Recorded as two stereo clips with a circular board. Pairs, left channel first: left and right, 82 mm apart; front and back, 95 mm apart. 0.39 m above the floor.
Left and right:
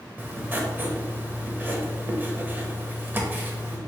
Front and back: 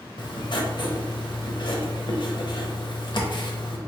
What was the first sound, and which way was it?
Writing, 25° right.